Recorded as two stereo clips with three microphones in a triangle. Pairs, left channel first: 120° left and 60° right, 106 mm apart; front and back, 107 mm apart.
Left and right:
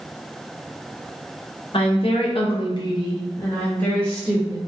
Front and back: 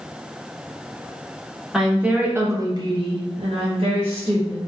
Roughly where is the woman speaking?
Left.